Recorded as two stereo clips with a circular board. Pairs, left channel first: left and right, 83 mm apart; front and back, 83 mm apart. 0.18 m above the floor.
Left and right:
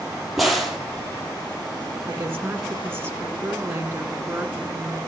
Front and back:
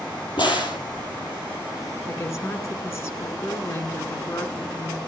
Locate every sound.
0.4 s a crack: 5° right, 3.5 m
2.1 s a woman speaking: 35° right, 1.7 m